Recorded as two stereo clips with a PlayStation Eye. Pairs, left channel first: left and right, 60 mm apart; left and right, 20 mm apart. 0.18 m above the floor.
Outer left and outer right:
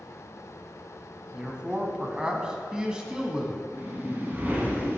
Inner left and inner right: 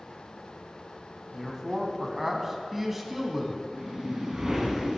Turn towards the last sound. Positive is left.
turn(degrees=-35)  # may be behind; listen again after turning